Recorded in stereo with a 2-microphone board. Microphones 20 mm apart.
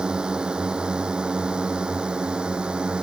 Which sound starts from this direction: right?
A drone, at 0.0 s.